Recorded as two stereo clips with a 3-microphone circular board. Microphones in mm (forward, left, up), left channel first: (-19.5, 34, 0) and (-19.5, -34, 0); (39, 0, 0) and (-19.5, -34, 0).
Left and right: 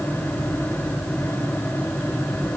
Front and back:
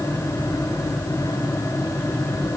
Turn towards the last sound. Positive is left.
No sound to turn to.